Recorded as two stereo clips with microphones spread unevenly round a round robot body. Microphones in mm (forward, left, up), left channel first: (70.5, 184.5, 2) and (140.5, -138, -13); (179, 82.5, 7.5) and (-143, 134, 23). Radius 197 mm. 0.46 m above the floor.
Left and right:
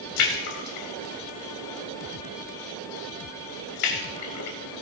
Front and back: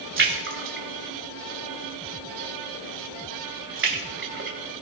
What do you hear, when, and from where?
0.2 s a splash: 120° left, 2.5 m